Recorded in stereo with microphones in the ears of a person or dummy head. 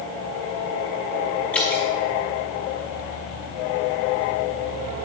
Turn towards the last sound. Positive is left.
turn(degrees=5)  # may be behind; listen again after turning